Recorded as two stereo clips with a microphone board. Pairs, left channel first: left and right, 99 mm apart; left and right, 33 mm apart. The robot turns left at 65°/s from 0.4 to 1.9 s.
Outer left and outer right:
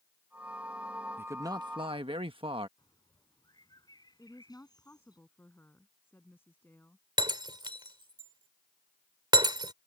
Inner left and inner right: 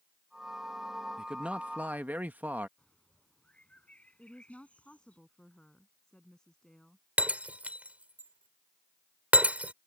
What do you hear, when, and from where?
1.2 s a man speaking: 20° right; by 2.7 s 70° right
2.8 s a bird: 45° left (ahead or behind)
4.2 s a woman speaking: 20° left (ahead or behind)
7.2 s breaking glass: 50° right (ahead or behind)